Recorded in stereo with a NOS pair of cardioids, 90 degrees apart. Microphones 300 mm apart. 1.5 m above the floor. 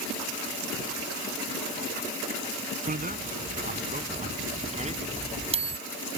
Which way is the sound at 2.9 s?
25° right.